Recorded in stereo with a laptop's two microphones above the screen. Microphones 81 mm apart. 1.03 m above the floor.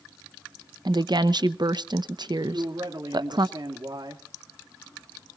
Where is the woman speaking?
60° right (ahead or behind), 0.8 m.